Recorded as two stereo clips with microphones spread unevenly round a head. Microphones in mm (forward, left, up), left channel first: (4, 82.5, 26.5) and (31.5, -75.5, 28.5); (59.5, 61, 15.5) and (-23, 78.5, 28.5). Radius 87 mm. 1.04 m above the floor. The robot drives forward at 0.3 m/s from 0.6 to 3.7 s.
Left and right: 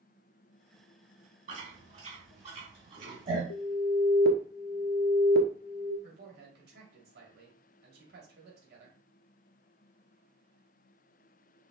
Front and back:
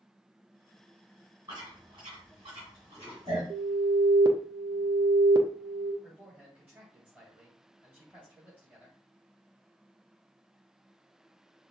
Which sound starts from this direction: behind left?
An alarm, at 3.5 s.